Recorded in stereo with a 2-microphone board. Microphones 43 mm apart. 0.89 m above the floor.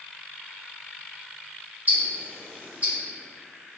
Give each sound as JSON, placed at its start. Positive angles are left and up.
{"t": 1.9, "sound": "ticking", "side_deg": -35, "distance_m": 1.7}